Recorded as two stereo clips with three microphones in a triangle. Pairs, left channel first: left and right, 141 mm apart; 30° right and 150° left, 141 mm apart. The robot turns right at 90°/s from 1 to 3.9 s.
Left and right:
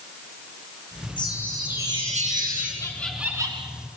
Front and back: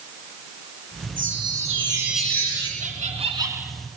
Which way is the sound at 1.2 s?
145° left.